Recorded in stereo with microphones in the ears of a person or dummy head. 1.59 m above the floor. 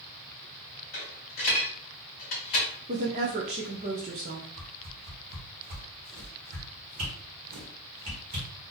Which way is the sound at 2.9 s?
25° right (ahead or behind).